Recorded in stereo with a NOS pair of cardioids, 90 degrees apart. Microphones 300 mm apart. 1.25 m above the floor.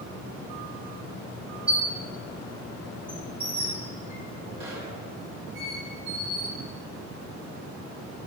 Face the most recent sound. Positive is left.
turn(degrees=-20)